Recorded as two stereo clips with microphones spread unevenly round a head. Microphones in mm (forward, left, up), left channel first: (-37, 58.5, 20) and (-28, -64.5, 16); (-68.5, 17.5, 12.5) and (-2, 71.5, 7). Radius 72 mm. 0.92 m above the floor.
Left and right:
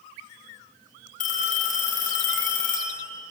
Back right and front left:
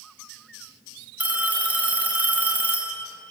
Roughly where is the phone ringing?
Left.